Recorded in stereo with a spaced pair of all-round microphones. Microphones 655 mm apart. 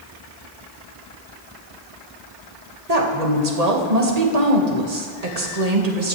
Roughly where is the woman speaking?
Right.